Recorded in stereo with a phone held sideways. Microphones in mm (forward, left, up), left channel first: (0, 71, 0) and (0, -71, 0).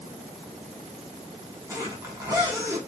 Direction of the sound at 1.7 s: 25° right (ahead or behind).